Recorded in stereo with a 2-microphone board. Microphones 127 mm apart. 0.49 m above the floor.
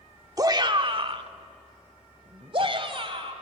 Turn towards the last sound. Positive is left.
turn(degrees=-45)  # may be behind; listen again after turning